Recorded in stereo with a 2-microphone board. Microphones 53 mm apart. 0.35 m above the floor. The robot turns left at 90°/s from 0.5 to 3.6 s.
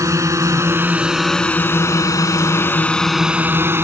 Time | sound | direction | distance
0.0 | a drone | 65° right (ahead or behind) | ?